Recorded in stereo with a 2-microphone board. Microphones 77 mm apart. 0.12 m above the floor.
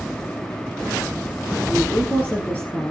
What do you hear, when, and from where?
1.7 s a woman speaking: 20° left (ahead or behind), 3 m